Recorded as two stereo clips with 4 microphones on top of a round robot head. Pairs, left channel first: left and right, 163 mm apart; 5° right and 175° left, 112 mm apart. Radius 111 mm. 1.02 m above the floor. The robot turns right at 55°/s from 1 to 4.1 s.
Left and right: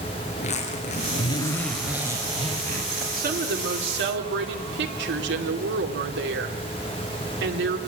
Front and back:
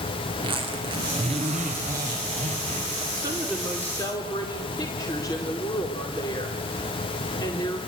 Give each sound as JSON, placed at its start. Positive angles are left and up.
{"t": 0.3, "sound": "a zipper", "azimuth_deg": 135, "distance_m": 3.5}
{"t": 3.2, "sound": "a woman speaking", "azimuth_deg": -125, "distance_m": 2.5}